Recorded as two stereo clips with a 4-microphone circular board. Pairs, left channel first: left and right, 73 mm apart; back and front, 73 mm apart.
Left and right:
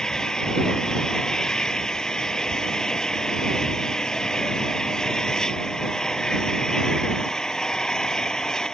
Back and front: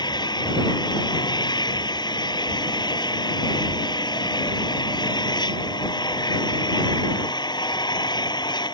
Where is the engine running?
170° left.